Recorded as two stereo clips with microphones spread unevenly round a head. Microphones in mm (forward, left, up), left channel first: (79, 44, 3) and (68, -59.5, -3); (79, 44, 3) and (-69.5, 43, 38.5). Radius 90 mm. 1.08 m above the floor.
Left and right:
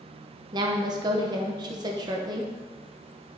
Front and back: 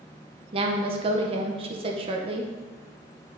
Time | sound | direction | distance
0.5 | a woman speaking | 125° right | 0.7 m